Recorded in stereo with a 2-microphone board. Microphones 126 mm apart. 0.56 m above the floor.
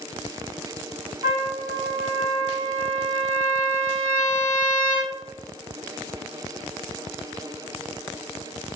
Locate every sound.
1.2 s a trumpet: 45° right (ahead or behind), 1.7 m